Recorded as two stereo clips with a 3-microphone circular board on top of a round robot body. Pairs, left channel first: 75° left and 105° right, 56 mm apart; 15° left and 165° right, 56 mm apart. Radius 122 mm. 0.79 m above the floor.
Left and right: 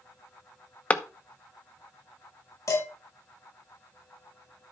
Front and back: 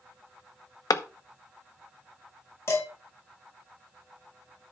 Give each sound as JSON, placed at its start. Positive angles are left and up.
{"t": 0.9, "sound": "a clap", "azimuth_deg": 10, "distance_m": 0.8}
{"t": 2.7, "sound": "dishes clattering", "azimuth_deg": 55, "distance_m": 5.0}